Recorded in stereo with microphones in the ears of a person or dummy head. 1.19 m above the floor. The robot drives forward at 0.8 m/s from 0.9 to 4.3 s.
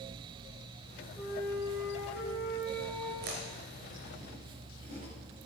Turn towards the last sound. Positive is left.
turn(degrees=-40)  # may be behind; listen again after turning